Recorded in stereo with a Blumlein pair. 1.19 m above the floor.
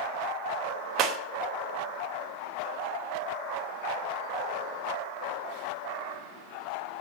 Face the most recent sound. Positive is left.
turn(degrees=-35)